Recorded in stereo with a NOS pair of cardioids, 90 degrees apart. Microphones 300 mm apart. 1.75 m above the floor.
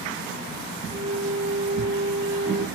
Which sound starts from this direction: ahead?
A flute, at 0.9 s.